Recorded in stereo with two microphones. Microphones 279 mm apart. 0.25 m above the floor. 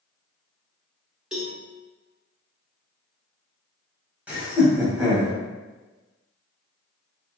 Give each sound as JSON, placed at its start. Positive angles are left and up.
{"t": 1.3, "sound": "a cowbell", "side_deg": 0, "distance_m": 1.0}
{"t": 4.3, "sound": "laughter", "side_deg": -5, "distance_m": 1.8}